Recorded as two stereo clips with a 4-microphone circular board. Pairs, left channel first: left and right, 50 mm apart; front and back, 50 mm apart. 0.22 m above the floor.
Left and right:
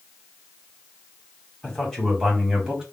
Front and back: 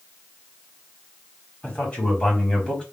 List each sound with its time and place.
1.6 s a man speaking: 35° left, 1.4 m; by 2.8 s 30° right, 1.4 m